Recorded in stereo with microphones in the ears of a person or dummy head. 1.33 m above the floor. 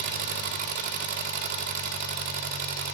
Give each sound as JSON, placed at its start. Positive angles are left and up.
{"t": 0.0, "sound": "an engine running", "side_deg": -50, "distance_m": 1.1}